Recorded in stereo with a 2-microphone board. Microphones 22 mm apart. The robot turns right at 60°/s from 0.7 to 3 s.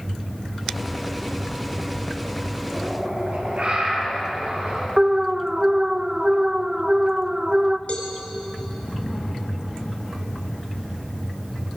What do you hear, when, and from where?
2.7 s a bird: 75° right (ahead or behind), 8.5 m; by 4.9 s 60° right (ahead or behind), 8.5 m
5.0 s an alarm: 35° right (ahead or behind), 0.7 m
7.9 s a cowbell: 60° left (ahead or behind), 2.5 m